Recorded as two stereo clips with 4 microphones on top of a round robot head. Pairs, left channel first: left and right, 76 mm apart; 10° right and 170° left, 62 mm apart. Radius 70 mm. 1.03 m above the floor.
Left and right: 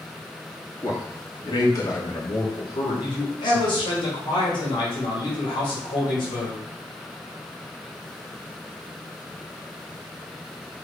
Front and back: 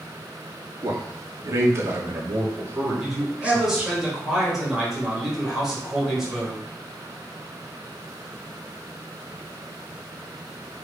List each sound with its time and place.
0.8 s a man speaking: 135° left, 2.5 m; by 4.0 s 95° left, 2.5 m
3.0 s a man speaking: 85° left, 3.5 m